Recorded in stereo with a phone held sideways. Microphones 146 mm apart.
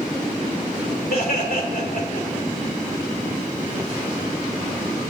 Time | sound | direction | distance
1.1 | laughter | 80° left | 3 m